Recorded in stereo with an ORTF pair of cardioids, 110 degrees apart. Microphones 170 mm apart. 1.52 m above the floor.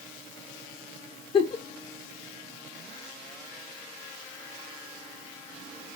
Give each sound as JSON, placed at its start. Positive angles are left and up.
{"t": 1.3, "sound": "a giggle", "azimuth_deg": 35, "distance_m": 0.6}